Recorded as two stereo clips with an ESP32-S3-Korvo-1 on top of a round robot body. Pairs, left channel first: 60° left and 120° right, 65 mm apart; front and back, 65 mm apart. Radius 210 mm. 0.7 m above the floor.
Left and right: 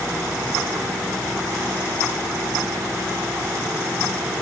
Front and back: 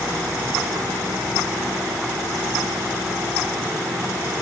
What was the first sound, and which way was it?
Only background noise.